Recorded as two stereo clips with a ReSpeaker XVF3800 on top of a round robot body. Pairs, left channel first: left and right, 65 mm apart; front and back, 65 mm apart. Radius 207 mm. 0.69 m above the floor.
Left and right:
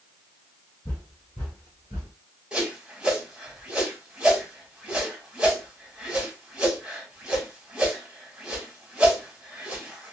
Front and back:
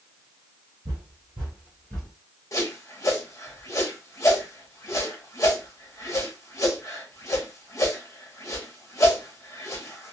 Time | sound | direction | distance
0.8 | footsteps | 165° left | 1.3 m
2.5 | a whoosh | 20° right | 1.6 m